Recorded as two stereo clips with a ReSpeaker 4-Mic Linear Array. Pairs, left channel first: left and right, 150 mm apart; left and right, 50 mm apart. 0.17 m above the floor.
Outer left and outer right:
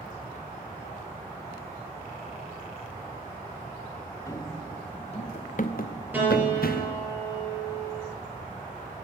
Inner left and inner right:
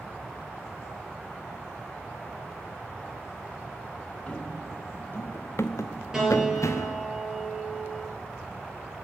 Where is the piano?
10° right (ahead or behind), 3.5 m.